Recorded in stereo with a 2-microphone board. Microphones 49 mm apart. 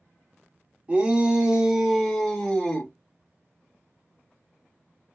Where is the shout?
25° right (ahead or behind), 1.4 m; by 2.9 s 25° left (ahead or behind), 1.3 m.